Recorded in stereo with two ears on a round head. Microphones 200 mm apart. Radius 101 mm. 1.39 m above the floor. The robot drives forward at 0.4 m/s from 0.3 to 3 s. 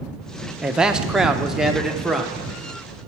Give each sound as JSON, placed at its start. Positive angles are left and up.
{"t": 0.6, "sound": "a man speaking", "side_deg": -5, "distance_m": 0.6}